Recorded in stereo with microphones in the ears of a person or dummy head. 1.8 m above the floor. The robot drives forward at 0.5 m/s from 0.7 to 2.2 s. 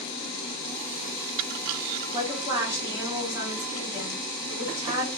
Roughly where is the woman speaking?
Centre.